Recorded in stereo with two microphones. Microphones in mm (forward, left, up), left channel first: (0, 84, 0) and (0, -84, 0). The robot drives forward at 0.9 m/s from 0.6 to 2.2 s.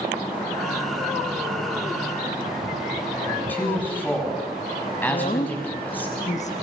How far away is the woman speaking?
About 1.3 m.